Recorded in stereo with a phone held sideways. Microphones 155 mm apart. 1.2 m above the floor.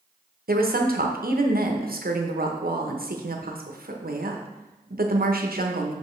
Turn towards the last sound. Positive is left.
turn(degrees=-70)  # may be behind; listen again after turning